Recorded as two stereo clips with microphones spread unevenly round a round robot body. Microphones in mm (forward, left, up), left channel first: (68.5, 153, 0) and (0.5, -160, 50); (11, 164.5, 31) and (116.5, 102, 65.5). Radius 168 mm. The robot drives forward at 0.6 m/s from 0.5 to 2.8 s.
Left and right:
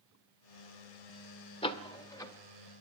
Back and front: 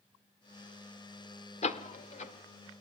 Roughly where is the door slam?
Behind left.